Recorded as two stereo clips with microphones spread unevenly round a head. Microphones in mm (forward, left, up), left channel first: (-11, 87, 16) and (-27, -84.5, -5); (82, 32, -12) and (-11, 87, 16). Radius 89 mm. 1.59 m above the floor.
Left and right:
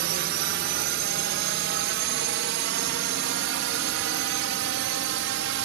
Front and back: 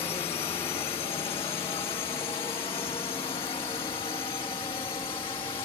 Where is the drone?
90° right; by 5.7 s 95° right.